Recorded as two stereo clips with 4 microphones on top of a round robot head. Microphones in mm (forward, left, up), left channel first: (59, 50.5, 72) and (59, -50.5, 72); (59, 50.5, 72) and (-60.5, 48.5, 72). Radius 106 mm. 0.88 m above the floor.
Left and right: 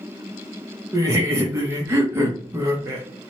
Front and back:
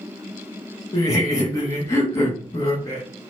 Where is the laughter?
45° right, 0.8 m.